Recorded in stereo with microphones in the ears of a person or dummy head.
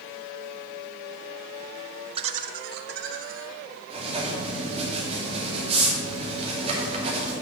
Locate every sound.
2.1 s laughter: 40° right (ahead or behind), 0.8 m; by 3.5 s 80° right, 1.6 m
3.9 s writing: 40° right (ahead or behind), 3 m